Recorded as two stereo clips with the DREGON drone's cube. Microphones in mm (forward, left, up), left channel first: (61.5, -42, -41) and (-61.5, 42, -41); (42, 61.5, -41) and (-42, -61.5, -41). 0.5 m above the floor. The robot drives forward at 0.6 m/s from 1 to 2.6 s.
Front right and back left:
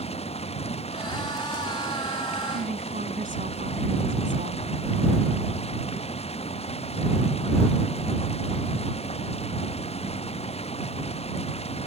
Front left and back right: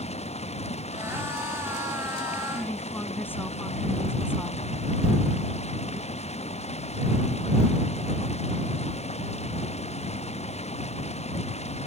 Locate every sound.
0.0 s running water: 10° left
2.5 s a woman speaking: 130° left